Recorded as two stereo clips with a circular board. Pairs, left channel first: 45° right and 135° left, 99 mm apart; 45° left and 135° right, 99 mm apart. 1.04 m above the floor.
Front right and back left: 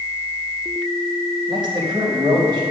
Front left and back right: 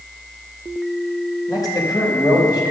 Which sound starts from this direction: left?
A man speaking, at 1.5 s.